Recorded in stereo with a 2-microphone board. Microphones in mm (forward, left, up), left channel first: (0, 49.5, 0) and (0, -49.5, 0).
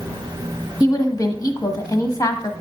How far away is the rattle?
No rattle in this recording.